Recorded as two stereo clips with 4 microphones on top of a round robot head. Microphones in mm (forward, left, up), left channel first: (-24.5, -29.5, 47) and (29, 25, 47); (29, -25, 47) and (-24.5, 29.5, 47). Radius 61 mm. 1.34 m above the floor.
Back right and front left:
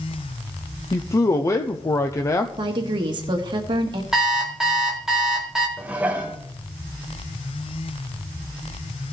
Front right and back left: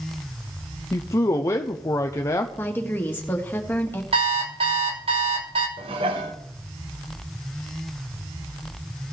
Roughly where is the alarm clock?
Behind left.